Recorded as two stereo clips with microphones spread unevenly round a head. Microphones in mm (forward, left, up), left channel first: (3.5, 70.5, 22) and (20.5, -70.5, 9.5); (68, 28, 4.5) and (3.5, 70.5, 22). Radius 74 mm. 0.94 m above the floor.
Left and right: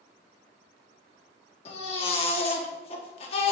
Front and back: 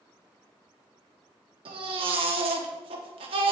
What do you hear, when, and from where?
1.6 s a baby crying: 150° left, 1.2 m